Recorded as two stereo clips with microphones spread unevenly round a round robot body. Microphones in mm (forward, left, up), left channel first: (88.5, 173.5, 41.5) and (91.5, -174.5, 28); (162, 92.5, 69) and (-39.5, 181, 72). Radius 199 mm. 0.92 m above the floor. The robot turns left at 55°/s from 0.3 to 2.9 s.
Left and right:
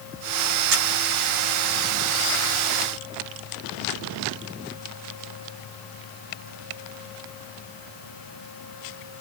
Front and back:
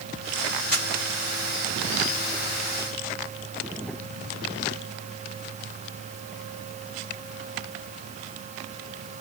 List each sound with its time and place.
0.7 s a camera shutter: 105° right, 1.2 m; by 0.9 s 115° right, 1.2 m